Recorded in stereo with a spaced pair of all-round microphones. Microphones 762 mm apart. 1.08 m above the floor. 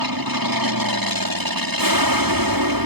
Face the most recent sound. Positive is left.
turn(degrees=-25)  # may be behind; listen again after turning